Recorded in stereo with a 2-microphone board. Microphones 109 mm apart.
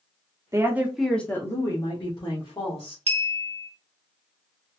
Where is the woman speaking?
25° right (ahead or behind), 0.8 m; by 3.0 s 55° left (ahead or behind), 1.6 m.